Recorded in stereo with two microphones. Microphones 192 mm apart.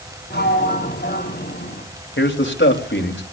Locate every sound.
0.3 s a sliding door: 60° left (ahead or behind), 4.5 m
2.2 s a man speaking: 80° left, 3.5 m